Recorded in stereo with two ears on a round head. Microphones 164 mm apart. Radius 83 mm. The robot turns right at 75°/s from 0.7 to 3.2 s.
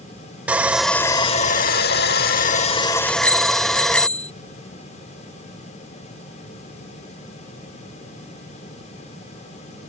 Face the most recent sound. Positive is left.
turn(degrees=5)  # may be behind; listen again after turning